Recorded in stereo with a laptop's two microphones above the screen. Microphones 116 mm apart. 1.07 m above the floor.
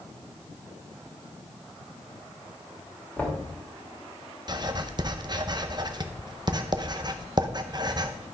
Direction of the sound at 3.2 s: 10° left (ahead or behind).